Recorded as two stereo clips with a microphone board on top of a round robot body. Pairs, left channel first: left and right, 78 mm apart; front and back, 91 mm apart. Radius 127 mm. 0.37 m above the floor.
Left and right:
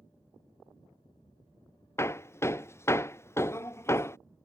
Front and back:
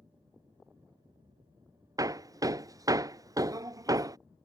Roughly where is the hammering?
Behind left.